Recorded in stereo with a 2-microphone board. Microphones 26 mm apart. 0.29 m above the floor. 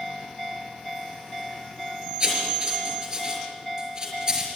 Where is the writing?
30° right (ahead or behind), 5.5 m.